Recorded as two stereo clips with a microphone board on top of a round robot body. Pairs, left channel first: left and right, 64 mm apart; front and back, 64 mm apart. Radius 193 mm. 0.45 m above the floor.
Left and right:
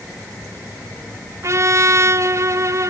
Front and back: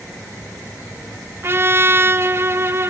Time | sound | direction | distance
1.4 | a trumpet | 130° right | 1.2 m